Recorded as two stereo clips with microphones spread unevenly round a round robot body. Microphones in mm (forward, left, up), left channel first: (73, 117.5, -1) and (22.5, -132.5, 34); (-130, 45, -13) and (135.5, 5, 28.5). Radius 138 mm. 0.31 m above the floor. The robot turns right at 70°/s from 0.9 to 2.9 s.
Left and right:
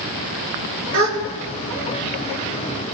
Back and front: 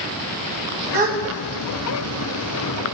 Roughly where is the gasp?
Right.